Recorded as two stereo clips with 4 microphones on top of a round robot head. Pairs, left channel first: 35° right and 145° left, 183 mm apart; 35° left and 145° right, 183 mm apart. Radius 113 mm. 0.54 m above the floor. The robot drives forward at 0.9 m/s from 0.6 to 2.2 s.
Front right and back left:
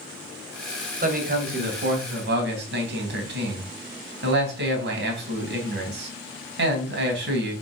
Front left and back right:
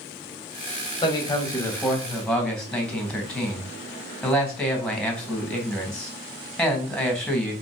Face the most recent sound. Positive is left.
turn(degrees=120)